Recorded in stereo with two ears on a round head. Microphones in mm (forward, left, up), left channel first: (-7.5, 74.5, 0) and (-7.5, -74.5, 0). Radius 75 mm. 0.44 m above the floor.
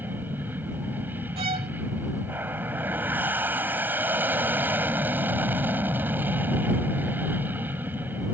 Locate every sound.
0.0 s an aircraft: 10° right (ahead or behind)
1.4 s a violin: 35° right (ahead or behind)